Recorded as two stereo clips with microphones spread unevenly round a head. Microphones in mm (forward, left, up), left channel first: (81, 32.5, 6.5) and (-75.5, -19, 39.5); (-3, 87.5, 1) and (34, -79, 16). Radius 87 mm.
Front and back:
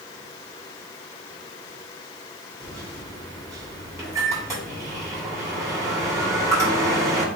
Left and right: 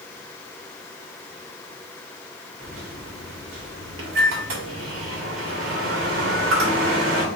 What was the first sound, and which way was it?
A microwave, 90° right.